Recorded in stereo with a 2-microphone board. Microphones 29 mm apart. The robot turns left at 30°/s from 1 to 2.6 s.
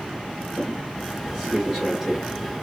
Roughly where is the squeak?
Right.